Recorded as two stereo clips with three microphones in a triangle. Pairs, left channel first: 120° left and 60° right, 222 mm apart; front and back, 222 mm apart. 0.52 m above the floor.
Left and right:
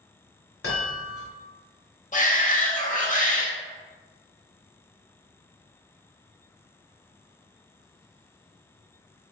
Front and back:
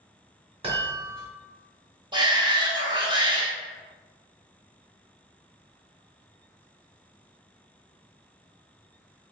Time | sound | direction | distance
0.6 | a chime | 115° left | 2 m
2.1 | a shout | 125° left | 1.0 m